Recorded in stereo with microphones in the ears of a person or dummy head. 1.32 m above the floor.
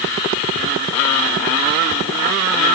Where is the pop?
I don't hear a pop.